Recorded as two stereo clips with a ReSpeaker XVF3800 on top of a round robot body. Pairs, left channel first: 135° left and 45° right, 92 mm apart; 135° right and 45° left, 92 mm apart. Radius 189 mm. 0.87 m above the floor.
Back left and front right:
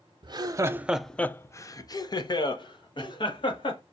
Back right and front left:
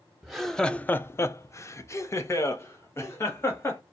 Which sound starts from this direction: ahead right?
Laughter, at 0.2 s.